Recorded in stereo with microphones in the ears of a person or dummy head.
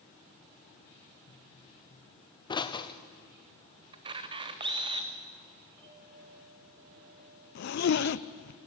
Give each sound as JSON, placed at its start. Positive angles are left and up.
{"t": 1.3, "sound": "a pop", "side_deg": 20, "distance_m": 1.0}
{"t": 3.9, "sound": "a camera shutter", "side_deg": -30, "distance_m": 1.4}
{"t": 5.8, "sound": "a clink", "side_deg": -10, "distance_m": 9.5}
{"t": 7.5, "sound": "a zipper", "side_deg": 60, "distance_m": 0.6}